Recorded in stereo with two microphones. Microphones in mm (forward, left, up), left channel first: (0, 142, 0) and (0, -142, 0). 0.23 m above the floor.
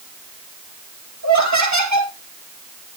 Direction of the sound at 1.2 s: 75° right (ahead or behind).